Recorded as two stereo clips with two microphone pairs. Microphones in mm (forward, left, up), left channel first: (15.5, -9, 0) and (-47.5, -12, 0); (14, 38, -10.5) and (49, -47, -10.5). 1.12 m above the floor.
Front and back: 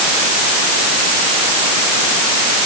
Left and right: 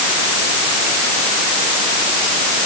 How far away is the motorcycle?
No motorcycle in this recording.